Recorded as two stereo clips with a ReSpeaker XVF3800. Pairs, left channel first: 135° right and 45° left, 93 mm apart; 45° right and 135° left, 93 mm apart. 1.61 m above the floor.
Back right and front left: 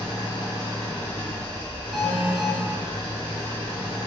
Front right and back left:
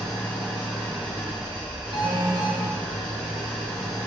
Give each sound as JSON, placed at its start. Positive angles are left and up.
{"t": 0.0, "sound": "an engine running", "azimuth_deg": -115, "distance_m": 1.9}
{"t": 1.9, "sound": "an alarm", "azimuth_deg": 130, "distance_m": 0.7}